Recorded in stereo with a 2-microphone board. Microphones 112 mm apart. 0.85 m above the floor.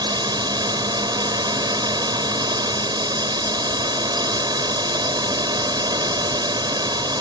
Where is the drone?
40° right (ahead or behind).